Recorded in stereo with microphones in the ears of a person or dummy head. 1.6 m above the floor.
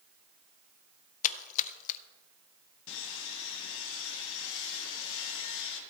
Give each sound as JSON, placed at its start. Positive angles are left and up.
{"t": 1.2, "sound": "a splash", "side_deg": 45, "distance_m": 0.5}
{"t": 2.9, "sound": "sawing", "side_deg": 75, "distance_m": 2.0}